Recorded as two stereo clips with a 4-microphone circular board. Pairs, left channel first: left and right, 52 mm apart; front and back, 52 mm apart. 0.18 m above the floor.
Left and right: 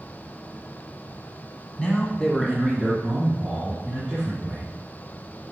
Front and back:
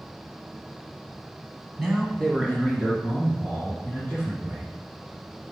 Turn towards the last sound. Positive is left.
turn(degrees=-20)